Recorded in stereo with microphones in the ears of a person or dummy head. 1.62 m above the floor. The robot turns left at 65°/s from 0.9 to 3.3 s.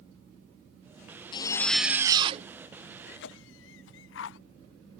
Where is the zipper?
30° left; by 2.5 s 45° right.